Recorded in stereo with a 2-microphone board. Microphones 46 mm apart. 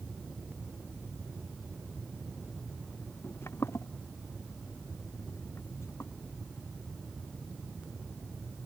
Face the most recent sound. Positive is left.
turn(degrees=75)  # may be behind; listen again after turning